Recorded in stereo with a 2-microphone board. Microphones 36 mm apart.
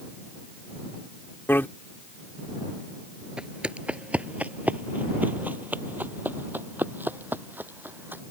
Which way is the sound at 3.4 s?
30° right (ahead or behind).